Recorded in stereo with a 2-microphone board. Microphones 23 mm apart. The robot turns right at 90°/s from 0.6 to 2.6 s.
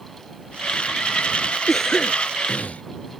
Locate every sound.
1.7 s a cough: 5° left; by 2.8 s 90° left